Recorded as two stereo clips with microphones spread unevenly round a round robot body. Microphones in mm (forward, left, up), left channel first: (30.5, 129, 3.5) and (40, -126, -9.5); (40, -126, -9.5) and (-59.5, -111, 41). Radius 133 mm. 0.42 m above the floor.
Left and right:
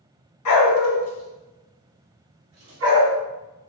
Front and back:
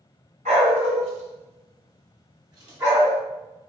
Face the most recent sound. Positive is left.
turn(degrees=-125)